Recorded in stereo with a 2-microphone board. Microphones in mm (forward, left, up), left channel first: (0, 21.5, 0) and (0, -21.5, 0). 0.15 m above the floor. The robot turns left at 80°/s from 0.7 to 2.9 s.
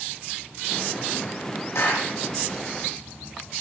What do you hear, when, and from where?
1.8 s a clap: 75° left (ahead or behind), 4.5 m; by 2.1 s 50° left (ahead or behind), 4.5 m